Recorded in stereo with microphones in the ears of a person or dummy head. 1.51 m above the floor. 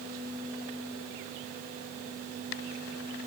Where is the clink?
No clink in this recording.